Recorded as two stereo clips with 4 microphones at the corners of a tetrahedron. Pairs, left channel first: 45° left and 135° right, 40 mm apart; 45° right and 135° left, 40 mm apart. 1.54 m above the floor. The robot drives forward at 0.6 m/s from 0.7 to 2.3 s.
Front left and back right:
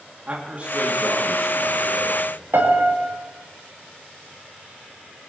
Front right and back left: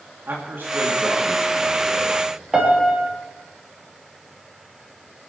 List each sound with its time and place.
0.3 s a man speaking: 170° left, 2 m
2.5 s a piano: 150° right, 3 m